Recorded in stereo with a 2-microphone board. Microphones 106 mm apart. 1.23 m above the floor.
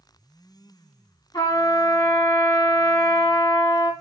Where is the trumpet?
45° left (ahead or behind), 1.2 m.